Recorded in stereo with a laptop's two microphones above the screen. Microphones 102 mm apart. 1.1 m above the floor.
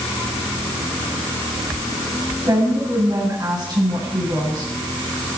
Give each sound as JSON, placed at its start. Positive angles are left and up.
{"t": 2.5, "sound": "a woman speaking", "side_deg": -45, "distance_m": 9.0}